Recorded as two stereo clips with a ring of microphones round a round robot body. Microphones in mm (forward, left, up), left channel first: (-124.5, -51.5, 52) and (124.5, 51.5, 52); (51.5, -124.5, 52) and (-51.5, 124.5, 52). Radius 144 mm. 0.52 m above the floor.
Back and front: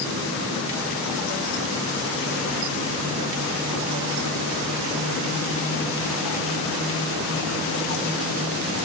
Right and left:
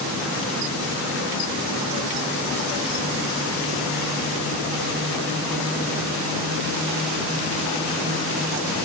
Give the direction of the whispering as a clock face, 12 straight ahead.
No whispering in this recording.